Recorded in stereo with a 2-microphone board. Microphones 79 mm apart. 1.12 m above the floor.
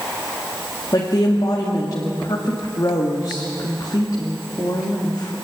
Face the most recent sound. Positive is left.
turn(degrees=55)  # may be behind; listen again after turning